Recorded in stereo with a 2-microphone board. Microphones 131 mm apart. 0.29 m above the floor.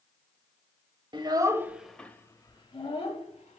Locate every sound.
1.1 s a child speaking: 40° right (ahead or behind), 0.6 m; by 3.6 s 55° left (ahead or behind), 1.1 m